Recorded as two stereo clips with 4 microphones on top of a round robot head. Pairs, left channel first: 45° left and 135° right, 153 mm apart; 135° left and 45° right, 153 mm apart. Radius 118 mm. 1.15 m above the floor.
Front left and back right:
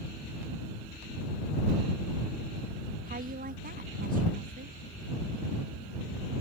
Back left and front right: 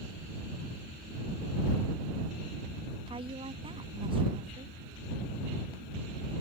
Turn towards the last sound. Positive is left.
turn(degrees=-105)